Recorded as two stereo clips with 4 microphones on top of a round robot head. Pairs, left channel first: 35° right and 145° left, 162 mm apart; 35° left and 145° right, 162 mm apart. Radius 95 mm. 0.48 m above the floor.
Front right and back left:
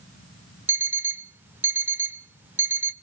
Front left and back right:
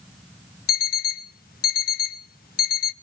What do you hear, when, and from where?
0.7 s an alarm clock: 65° left, 0.7 m